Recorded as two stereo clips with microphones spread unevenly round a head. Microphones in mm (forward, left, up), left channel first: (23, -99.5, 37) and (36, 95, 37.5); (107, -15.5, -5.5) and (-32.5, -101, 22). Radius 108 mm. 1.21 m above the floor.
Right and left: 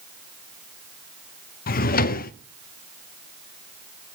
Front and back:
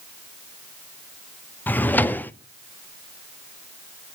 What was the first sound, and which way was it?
A drawer, 50° right.